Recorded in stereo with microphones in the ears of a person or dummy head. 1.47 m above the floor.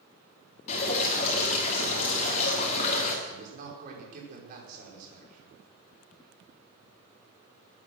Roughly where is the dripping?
Left.